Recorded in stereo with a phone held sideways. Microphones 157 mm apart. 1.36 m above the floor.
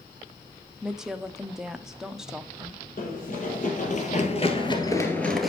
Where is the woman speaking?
5° right (ahead or behind), 0.8 m.